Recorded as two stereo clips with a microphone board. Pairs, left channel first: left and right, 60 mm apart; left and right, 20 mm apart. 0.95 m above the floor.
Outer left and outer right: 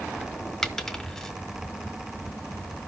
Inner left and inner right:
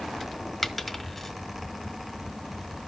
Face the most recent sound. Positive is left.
turn(degrees=10)  # may be behind; listen again after turning